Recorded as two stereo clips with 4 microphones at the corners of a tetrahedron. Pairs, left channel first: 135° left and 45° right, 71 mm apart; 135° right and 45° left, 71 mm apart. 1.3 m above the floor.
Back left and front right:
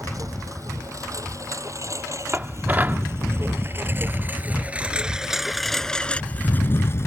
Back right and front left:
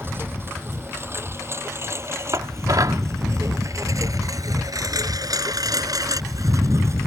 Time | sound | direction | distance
0.0 | a lawn mower | 10° right | ?
2.3 | dishes clattering | 15° left | ?